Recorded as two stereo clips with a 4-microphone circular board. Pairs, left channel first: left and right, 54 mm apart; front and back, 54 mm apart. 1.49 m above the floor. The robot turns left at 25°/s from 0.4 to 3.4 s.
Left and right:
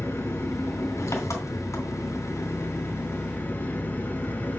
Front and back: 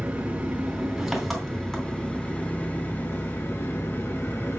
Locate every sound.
0.0 s an engine running: 115° left, 3 m; by 4.6 s 40° left, 3 m